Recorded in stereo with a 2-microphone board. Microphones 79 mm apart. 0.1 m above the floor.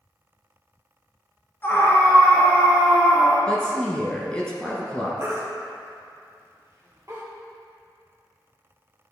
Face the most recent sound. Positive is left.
turn(degrees=-35)  # may be behind; listen again after turning